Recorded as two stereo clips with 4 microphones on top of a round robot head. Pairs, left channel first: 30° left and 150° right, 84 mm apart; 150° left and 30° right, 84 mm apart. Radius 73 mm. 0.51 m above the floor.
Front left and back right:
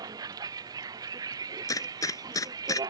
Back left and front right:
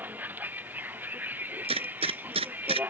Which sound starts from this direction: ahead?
A gunshot, at 1.6 s.